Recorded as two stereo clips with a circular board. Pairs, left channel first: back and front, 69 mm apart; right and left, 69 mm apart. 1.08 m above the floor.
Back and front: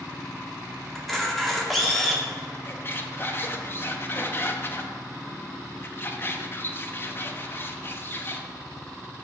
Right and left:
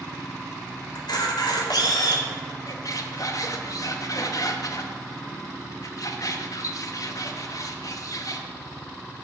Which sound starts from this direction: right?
A camera shutter, at 0.9 s.